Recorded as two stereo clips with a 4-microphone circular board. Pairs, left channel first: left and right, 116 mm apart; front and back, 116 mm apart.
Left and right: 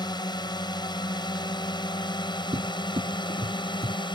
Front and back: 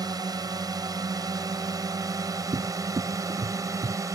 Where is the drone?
130° left; by 4.1 s 125° left.